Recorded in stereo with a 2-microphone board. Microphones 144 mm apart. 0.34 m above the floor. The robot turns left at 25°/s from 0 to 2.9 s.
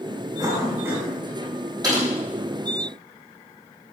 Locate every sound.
0.4 s a cough: 30° right (ahead or behind), 2.5 m; by 1.1 s 15° right (ahead or behind), 2.5 m
1.8 s typing on a keyboard: 25° right (ahead or behind), 3.5 m; by 2.0 s 20° right (ahead or behind), 3.5 m